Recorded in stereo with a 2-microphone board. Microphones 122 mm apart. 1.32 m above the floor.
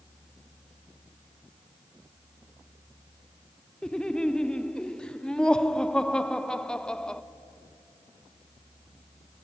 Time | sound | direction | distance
3.8 | laughter | 5° left (ahead or behind) | 0.8 m